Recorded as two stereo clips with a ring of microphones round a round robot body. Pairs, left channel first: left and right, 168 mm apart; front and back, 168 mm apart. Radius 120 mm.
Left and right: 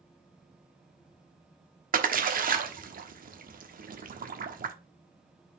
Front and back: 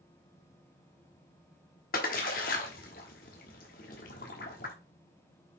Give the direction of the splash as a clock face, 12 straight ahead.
2 o'clock.